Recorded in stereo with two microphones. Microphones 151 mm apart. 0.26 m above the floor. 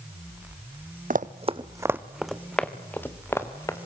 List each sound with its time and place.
1.1 s running footsteps: 65° right (ahead or behind), 0.8 m; by 3.8 s 20° left (ahead or behind), 2.5 m